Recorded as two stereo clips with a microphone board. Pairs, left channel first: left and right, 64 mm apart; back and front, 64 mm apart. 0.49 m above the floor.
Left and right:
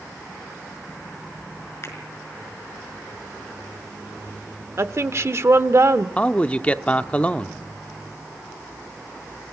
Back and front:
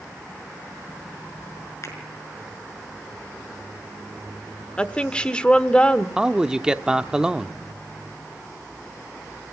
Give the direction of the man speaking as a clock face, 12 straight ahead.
10 o'clock.